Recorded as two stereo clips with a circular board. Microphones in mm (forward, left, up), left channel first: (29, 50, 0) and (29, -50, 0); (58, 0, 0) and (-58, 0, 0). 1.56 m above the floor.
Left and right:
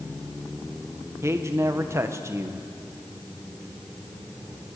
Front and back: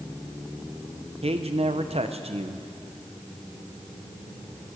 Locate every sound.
1.2 s a man speaking: 150° right, 1.2 m